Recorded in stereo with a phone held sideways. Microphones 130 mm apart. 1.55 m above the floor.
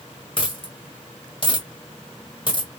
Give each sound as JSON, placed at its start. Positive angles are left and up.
{"t": 0.4, "sound": "a dropped coin", "side_deg": 40, "distance_m": 1.6}